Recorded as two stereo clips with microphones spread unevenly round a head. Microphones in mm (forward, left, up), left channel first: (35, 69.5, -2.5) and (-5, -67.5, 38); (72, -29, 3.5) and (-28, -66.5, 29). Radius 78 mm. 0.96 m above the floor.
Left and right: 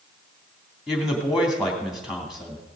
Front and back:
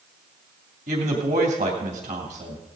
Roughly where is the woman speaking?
Behind.